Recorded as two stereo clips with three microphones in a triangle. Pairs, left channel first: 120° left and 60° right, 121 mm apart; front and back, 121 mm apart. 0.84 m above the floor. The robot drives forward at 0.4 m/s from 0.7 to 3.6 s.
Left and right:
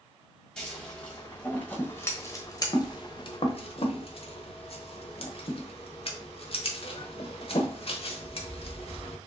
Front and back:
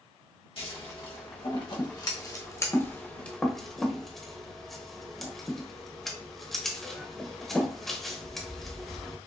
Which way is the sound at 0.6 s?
35° left.